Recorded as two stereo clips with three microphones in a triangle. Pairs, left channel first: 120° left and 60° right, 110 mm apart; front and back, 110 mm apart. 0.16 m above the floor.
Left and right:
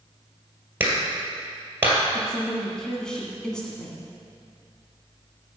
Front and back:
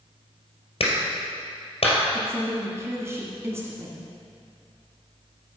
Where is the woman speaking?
165° right, 1.6 m.